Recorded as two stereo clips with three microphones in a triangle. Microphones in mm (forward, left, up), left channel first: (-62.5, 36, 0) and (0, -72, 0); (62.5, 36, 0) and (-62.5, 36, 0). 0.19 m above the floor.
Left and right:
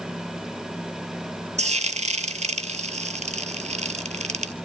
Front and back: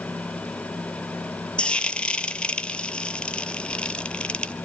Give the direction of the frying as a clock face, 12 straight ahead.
3 o'clock.